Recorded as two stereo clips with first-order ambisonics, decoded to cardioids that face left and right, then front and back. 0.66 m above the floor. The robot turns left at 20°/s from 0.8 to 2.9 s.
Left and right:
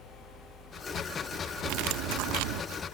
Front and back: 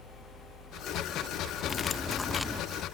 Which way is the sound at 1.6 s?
70° right.